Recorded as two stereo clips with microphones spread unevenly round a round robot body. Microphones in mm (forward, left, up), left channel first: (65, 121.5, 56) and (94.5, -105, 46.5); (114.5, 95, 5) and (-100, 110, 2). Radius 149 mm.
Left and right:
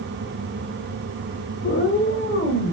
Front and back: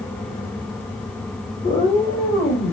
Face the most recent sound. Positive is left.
turn(degrees=55)